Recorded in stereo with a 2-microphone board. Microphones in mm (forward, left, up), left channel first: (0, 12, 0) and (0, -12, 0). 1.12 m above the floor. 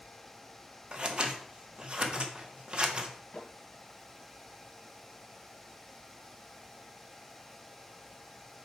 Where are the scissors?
40° right (ahead or behind), 0.9 m.